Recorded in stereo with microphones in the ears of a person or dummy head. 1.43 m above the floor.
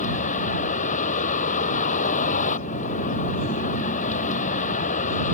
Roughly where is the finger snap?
No finger snap in this recording.